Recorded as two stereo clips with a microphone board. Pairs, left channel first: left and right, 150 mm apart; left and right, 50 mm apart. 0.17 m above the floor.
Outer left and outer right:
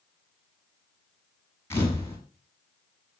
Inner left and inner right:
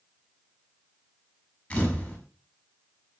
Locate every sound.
1.7 s a camera shutter: 15° left (ahead or behind), 8.5 m